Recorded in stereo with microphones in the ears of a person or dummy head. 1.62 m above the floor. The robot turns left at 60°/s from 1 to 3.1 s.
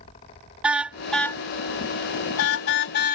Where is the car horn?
Centre (ahead or behind); by 3.1 s 55° left (ahead or behind).